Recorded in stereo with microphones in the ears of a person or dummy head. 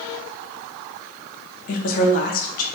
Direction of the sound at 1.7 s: 40° left (ahead or behind).